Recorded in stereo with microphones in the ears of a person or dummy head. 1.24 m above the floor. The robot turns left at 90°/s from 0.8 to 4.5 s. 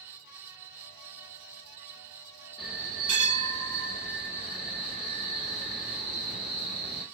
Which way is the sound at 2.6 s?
Straight ahead.